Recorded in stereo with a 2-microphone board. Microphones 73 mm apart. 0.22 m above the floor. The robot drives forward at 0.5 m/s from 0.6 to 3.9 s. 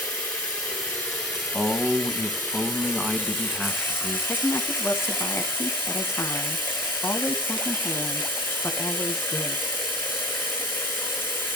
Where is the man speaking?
10° right (ahead or behind), 1.3 m; by 4.2 s 5° right (ahead or behind), 2 m.